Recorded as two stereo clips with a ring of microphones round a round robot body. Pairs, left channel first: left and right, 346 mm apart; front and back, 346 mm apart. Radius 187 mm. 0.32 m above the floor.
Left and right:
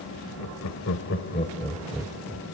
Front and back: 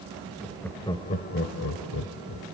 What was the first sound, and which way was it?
Laughter, 95° left.